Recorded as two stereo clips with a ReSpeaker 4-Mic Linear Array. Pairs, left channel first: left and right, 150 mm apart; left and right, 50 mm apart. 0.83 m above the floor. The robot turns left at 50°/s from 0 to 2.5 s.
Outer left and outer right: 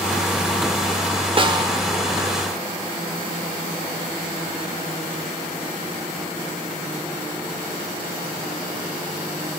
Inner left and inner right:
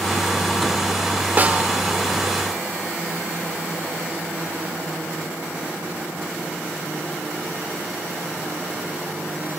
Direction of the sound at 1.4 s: 35° right (ahead or behind).